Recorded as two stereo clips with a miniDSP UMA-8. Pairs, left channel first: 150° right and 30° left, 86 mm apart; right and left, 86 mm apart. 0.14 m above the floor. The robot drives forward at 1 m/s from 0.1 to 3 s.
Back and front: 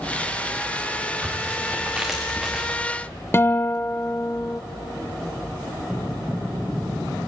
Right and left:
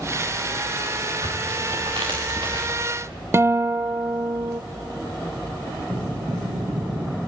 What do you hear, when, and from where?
1.2 s tearing paper: 105° left, 6.5 m; by 2.7 s 120° left, 7 m
3.3 s a guitar: 150° left, 0.6 m
5.9 s breathing: 125° left, 6 m